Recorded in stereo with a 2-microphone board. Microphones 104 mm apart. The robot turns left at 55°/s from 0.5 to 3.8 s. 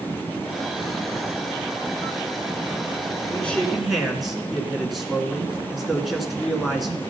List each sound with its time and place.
3.3 s a man speaking: 15° left (ahead or behind), 2 m; by 7.0 s centre (ahead or behind), 2 m